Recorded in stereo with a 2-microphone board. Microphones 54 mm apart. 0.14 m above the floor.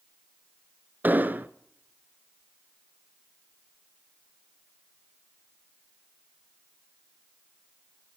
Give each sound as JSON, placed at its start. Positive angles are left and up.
{"t": 1.0, "sound": "an explosion", "side_deg": -35, "distance_m": 0.8}